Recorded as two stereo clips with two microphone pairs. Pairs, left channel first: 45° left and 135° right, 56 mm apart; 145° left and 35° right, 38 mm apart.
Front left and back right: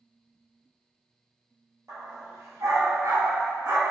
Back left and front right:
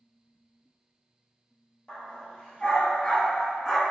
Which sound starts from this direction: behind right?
A dog barking, at 1.9 s.